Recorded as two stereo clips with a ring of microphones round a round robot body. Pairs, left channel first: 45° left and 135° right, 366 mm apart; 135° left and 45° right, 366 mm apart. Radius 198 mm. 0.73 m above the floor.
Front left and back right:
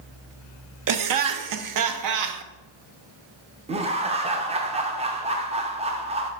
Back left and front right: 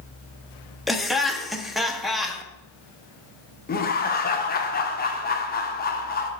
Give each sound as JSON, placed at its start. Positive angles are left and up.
{"t": 0.9, "sound": "laughter", "azimuth_deg": -135, "distance_m": 0.8}
{"t": 3.7, "sound": "laughter", "azimuth_deg": 170, "distance_m": 0.8}